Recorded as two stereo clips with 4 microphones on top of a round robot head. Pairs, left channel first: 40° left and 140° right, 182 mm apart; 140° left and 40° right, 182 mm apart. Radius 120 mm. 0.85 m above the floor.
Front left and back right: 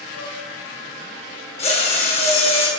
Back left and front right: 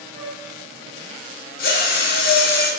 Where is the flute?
65° left, 5 m.